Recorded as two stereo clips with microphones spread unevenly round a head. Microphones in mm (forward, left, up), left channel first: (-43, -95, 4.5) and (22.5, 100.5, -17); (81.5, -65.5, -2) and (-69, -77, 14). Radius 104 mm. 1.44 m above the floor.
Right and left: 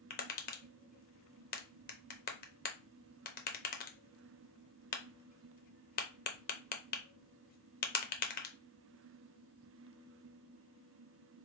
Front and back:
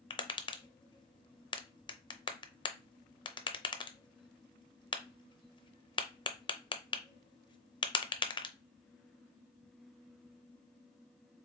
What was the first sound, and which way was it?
Tapping, 55° right.